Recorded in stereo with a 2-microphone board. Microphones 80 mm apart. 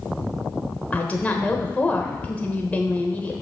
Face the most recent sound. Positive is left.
turn(degrees=20)  # may be behind; listen again after turning